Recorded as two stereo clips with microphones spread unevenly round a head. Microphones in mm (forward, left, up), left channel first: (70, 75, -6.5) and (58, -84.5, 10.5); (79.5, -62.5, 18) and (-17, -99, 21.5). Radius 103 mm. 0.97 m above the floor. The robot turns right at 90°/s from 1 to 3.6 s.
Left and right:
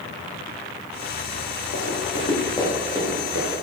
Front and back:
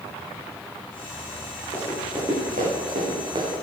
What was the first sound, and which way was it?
Running footsteps, 80° left.